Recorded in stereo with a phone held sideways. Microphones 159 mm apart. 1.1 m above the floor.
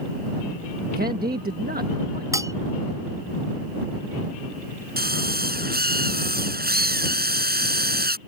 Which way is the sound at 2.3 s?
20° right (ahead or behind).